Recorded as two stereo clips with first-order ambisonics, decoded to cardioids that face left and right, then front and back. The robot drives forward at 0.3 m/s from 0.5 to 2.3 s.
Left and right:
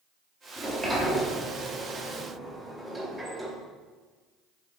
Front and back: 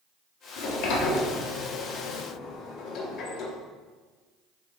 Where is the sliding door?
5° right, 1.3 m; by 3.6 s 15° right, 0.9 m.